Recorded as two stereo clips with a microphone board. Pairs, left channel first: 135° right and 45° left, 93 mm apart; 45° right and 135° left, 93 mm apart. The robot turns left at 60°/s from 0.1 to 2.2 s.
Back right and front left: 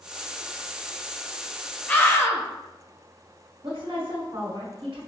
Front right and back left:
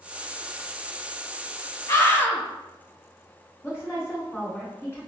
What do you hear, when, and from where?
1.9 s a scream: 70° right, 0.9 m; by 2.4 s 90° right, 0.9 m
3.6 s a woman speaking: 15° left, 1.9 m